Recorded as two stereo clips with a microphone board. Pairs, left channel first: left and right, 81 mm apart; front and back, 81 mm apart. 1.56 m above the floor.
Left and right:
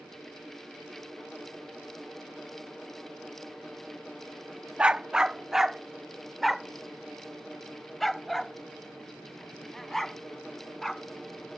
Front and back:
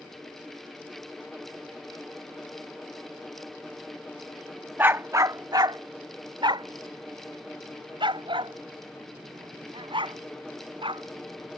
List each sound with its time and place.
4.8 s a dog barking: 155° right; by 11.0 s 175° left